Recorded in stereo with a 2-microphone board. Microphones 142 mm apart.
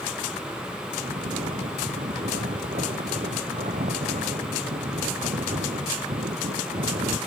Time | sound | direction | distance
1.0 | snoring | 75° right (ahead or behind) | ?